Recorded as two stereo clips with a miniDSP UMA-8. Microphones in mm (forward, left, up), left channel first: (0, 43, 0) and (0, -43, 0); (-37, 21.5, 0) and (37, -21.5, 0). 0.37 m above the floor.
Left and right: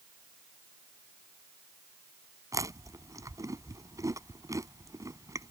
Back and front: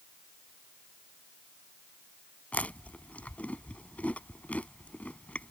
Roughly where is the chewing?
Behind right.